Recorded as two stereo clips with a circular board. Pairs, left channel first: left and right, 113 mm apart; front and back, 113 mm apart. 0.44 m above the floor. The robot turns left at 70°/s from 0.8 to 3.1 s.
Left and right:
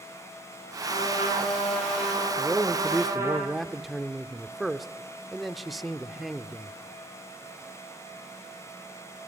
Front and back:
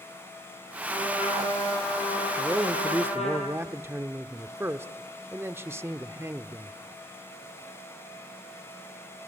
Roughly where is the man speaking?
Behind right.